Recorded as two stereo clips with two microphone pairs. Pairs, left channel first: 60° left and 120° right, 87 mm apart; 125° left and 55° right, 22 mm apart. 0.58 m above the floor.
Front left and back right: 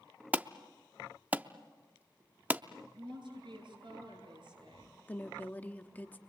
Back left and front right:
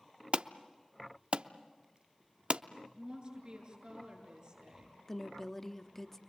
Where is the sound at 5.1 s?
85° left, 0.9 m.